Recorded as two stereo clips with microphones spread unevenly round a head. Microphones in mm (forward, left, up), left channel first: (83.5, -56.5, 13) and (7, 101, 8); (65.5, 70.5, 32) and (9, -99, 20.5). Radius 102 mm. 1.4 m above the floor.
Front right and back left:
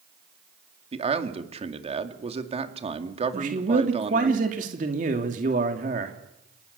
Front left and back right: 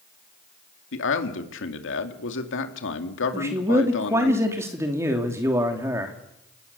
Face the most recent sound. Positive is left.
turn(degrees=170)